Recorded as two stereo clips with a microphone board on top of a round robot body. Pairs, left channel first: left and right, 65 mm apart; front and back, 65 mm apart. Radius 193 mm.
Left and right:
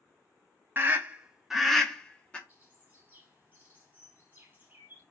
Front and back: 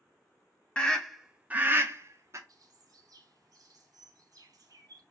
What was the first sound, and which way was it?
A scream, 65° right.